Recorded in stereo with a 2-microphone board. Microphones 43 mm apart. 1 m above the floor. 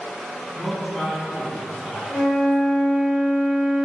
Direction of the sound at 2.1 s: 25° left (ahead or behind).